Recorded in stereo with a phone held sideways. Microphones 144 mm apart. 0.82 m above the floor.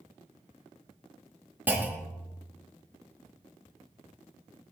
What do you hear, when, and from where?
1.7 s a clunk: 10° right (ahead or behind), 0.8 m